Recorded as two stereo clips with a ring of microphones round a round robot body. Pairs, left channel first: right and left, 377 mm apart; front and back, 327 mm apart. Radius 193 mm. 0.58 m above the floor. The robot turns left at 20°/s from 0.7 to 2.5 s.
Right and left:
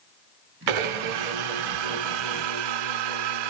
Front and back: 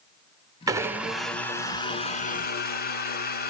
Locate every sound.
0.7 s a blender: 100° left, 0.9 m; by 3.5 s 65° left, 0.9 m